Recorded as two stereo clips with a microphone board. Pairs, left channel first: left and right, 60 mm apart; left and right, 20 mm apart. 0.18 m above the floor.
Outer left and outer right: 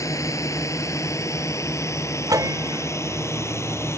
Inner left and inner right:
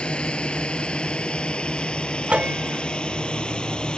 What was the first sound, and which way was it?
A drone, 65° left (ahead or behind).